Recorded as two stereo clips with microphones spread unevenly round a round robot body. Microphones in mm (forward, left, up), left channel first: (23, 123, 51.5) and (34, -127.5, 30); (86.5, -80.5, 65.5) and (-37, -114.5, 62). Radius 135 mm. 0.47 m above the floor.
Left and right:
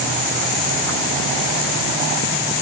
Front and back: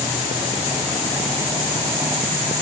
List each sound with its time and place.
Only background noise.